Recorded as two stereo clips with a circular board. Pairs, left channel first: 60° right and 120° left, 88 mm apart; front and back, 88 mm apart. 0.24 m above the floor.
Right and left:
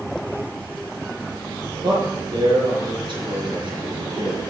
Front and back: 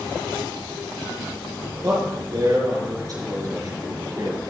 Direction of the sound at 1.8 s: 135° left.